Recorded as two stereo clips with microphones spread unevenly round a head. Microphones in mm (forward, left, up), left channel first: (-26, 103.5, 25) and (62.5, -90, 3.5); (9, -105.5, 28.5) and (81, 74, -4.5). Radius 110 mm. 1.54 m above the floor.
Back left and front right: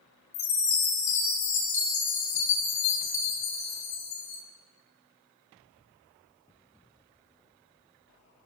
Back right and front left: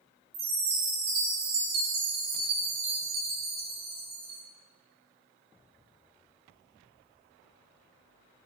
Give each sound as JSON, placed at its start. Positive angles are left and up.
{"t": 0.3, "sound": "a chime", "azimuth_deg": 115, "distance_m": 4.5}